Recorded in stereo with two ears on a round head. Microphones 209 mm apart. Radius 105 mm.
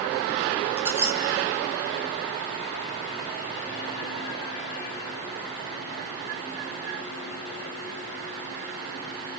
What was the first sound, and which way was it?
A squeak, 10° right (ahead or behind).